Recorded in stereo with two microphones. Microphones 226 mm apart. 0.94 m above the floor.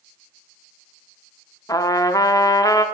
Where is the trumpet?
15° left (ahead or behind), 0.5 m.